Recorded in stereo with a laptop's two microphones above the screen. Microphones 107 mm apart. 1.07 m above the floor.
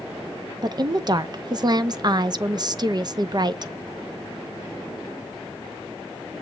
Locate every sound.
0.6 s a woman speaking: 40° right (ahead or behind), 0.5 m